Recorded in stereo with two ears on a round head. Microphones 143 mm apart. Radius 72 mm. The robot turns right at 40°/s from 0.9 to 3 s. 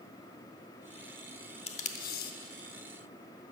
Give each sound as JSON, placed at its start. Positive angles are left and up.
{"t": 1.7, "sound": "tape being pulled", "side_deg": 40, "distance_m": 0.8}